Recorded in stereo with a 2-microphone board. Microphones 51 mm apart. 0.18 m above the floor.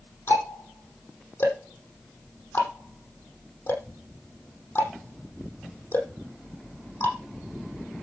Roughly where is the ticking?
Left.